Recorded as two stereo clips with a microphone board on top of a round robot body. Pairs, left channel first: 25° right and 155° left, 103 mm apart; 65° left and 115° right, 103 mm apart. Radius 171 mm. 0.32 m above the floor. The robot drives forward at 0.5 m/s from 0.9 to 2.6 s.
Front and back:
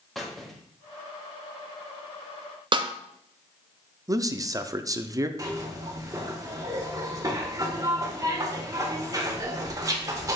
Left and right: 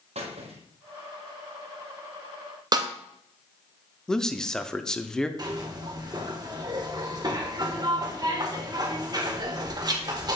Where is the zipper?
150° right, 1.8 m.